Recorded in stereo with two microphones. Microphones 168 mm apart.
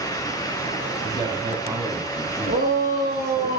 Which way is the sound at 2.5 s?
60° right (ahead or behind).